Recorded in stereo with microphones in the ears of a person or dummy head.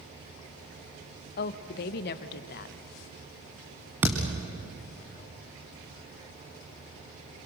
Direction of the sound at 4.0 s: 5° right (ahead or behind).